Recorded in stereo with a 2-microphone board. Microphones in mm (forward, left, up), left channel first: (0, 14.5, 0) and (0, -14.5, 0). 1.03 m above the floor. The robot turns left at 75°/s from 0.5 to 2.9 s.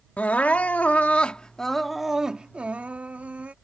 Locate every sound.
0.2 s crying: 100° left; by 3.5 s 80° right